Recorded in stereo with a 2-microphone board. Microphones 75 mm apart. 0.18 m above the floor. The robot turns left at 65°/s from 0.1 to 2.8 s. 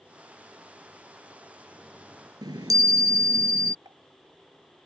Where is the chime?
75° right (ahead or behind); by 3.8 s 55° right (ahead or behind).